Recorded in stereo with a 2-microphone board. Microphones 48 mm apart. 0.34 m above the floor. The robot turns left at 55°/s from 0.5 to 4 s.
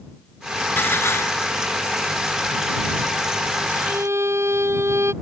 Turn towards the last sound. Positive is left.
turn(degrees=-70)  # may be behind; listen again after turning